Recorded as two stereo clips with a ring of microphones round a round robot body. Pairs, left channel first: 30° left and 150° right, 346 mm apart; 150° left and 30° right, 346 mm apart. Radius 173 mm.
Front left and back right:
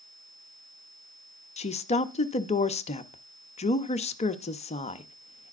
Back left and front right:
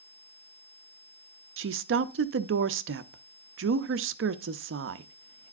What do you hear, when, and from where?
1.6 s a woman speaking: 25° right, 0.5 m